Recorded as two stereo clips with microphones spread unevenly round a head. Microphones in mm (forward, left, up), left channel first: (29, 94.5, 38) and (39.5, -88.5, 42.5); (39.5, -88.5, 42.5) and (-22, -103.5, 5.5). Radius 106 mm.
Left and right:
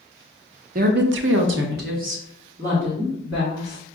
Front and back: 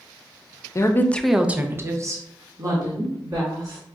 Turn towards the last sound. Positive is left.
turn(degrees=-155)